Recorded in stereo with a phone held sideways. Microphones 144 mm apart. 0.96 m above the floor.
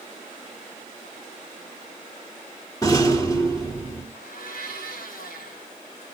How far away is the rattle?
About 3 m.